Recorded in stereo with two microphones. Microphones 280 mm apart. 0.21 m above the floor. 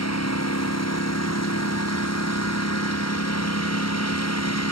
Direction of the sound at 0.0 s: 65° left (ahead or behind).